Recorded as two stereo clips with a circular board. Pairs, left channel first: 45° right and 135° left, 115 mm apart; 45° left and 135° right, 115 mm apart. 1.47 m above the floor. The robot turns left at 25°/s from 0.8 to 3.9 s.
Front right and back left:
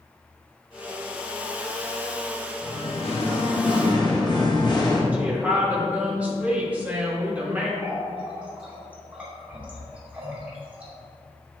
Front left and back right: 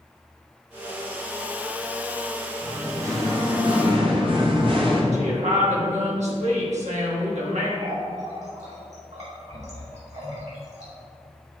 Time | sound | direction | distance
2.6 | singing | 60° right | 1.2 m
5.1 | a woman speaking | 145° right | 1.6 m
7.8 | a running tap | 145° right | 2.5 m